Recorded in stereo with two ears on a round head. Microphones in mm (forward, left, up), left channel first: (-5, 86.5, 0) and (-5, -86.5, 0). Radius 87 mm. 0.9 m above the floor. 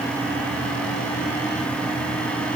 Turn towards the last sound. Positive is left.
No sound to turn to.